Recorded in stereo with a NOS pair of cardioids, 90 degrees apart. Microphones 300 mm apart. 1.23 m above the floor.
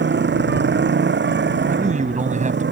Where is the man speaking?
25° right.